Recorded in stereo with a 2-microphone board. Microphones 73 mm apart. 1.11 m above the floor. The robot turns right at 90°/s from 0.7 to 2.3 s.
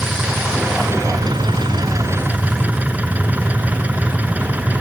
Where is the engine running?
165° right; by 4.8 s 20° right.